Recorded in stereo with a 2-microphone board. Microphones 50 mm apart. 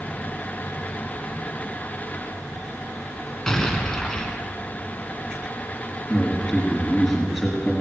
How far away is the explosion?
About 1.6 m.